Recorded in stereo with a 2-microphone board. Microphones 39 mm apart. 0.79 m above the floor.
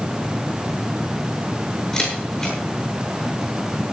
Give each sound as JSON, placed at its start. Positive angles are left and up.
{"t": 1.9, "sound": "a camera shutter", "side_deg": 15, "distance_m": 8.5}